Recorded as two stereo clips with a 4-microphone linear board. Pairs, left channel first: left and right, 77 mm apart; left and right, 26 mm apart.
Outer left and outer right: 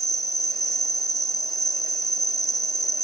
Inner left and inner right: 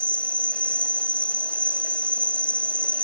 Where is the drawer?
No drawer in this recording.